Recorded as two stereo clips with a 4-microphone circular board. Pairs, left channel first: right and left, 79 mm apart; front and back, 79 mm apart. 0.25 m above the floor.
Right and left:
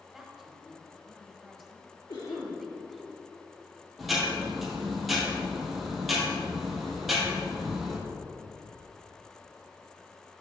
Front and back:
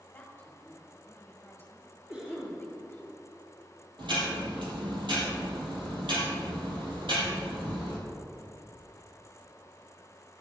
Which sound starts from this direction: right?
A cough, at 2.1 s.